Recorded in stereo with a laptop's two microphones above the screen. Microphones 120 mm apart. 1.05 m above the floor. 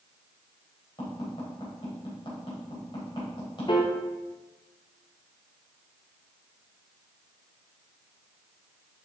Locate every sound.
1.0 s tapping: 45° left (ahead or behind), 3 m
3.7 s a piano: 40° left (ahead or behind), 0.8 m